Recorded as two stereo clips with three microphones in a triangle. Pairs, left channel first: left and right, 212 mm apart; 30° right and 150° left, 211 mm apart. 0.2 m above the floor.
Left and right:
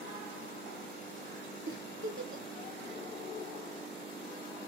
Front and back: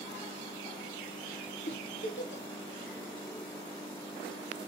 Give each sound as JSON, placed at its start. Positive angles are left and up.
{"t": 1.7, "sound": "a giggle", "azimuth_deg": -65, "distance_m": 0.8}